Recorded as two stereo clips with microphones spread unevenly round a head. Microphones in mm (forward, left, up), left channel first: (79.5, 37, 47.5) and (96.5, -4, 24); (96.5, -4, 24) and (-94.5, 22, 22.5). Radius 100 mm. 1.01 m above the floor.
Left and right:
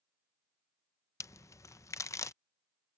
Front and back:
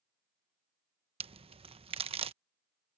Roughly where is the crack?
Behind left.